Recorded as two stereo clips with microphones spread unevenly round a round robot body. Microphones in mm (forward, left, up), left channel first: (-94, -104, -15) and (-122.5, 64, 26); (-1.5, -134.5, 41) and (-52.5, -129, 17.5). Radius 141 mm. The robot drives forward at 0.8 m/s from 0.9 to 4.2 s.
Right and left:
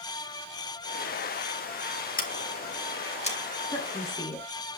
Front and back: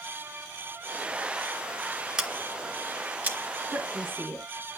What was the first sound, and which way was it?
Scissors, 110° right.